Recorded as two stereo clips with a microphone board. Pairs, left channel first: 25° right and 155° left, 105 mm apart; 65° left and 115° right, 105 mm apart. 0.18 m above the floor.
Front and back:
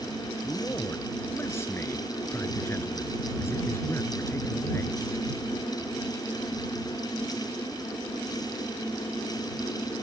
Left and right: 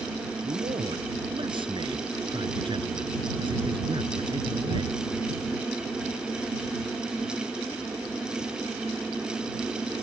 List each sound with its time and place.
0.4 s a man speaking: 85° right